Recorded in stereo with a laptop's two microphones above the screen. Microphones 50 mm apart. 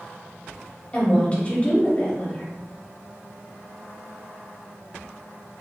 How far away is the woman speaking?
About 0.8 m.